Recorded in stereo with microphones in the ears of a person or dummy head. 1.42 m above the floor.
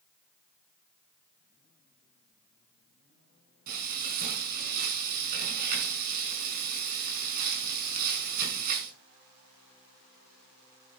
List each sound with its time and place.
3.7 s frying: 50° right (ahead or behind), 5.5 m